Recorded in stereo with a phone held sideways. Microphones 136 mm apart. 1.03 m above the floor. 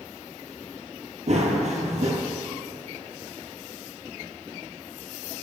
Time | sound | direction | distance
1.3 | running footsteps | 55° right (ahead or behind) | 1.7 m